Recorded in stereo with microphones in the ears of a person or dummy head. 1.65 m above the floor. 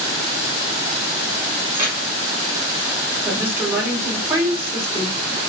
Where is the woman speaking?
15° right (ahead or behind), 1.6 m.